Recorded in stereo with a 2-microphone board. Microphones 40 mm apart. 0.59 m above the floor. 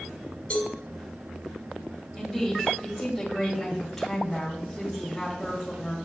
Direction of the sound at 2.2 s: 5° left (ahead or behind).